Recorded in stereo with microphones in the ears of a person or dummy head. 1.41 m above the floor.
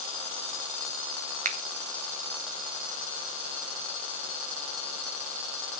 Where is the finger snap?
40° right (ahead or behind), 0.8 m.